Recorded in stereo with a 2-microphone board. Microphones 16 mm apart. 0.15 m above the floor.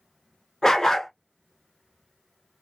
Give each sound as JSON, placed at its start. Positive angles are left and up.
{"t": 0.6, "sound": "a dog barking", "side_deg": 40, "distance_m": 0.9}